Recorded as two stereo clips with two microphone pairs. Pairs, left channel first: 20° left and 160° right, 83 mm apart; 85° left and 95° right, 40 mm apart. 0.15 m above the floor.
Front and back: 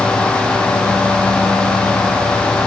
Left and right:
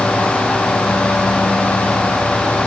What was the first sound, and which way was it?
Only background noise.